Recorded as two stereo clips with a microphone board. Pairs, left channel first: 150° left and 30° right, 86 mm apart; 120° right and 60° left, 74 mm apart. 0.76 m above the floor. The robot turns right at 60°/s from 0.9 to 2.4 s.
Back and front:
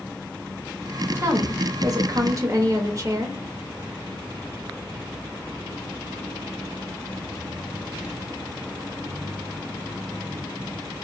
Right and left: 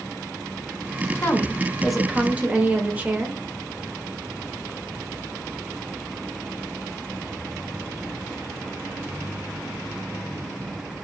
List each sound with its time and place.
1.1 s a woman speaking: 75° right, 0.8 m; by 3.4 s straight ahead, 0.8 m